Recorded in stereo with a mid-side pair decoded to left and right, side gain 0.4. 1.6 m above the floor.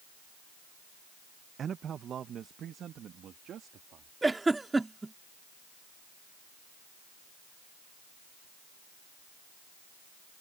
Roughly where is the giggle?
Ahead.